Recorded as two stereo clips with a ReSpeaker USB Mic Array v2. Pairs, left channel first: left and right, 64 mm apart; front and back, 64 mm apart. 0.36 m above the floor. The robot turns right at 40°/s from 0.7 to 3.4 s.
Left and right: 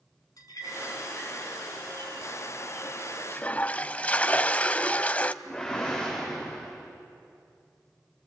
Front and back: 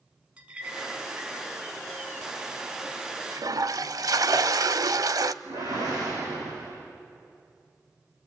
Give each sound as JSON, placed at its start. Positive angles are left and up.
{"t": 0.4, "sound": "a clink", "azimuth_deg": 110, "distance_m": 3.0}
{"t": 3.3, "sound": "a toilet flushing", "azimuth_deg": 155, "distance_m": 0.5}
{"t": 5.4, "sound": "a whoosh", "azimuth_deg": 170, "distance_m": 8.0}